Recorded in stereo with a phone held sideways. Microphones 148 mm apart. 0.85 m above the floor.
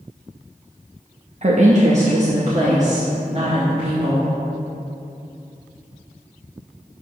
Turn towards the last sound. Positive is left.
turn(degrees=-50)  # may be behind; listen again after turning